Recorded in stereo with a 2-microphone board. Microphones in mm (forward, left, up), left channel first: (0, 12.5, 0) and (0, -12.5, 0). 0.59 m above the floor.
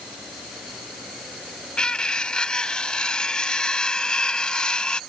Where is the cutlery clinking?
35° left (ahead or behind).